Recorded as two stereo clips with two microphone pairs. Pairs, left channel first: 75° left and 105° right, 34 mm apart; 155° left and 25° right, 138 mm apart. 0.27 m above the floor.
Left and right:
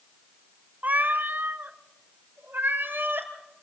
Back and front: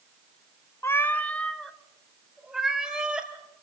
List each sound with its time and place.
0.8 s a cat meowing: 135° right, 0.7 m; by 3.3 s 110° right, 2 m